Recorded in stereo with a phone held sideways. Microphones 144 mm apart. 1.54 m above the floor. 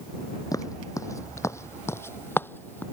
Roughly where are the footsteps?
Left.